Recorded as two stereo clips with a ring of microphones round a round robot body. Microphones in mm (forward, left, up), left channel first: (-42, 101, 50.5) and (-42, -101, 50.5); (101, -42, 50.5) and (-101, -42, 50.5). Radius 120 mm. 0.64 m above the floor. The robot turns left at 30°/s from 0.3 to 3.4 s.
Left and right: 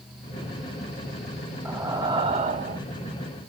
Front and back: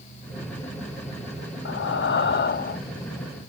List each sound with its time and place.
1.6 s breathing: 10° right, 0.7 m; by 2.8 s 45° right, 0.7 m